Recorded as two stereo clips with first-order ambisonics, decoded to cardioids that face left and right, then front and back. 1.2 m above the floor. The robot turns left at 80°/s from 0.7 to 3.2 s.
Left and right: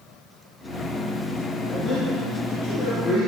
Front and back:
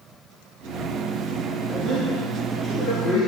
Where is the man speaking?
170° left, 2.5 m; by 3.3 s 45° left, 2.5 m.